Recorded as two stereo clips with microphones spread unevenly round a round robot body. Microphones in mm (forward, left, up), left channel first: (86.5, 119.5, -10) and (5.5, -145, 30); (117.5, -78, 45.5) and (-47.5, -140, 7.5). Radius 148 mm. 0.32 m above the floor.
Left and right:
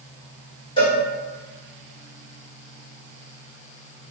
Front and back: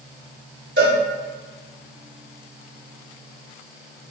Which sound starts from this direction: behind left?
A cowbell, at 0.8 s.